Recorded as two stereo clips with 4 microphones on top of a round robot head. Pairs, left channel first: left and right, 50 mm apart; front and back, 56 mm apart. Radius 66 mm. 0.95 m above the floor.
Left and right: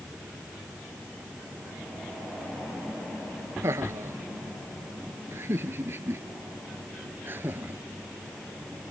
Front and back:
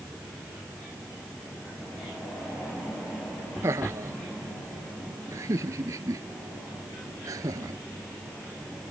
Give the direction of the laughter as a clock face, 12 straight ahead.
4 o'clock.